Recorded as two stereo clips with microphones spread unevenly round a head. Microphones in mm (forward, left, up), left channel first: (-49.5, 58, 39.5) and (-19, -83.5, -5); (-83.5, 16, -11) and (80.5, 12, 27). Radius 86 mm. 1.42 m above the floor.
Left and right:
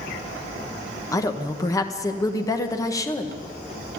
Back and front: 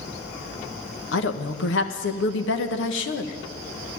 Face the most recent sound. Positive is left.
turn(degrees=170)